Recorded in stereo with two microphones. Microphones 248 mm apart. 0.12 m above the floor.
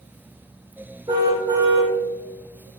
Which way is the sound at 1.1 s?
15° right (ahead or behind).